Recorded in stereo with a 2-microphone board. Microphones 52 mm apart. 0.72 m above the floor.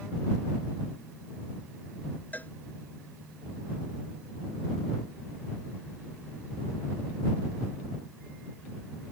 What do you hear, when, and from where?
2.3 s a cowbell: 30° left (ahead or behind)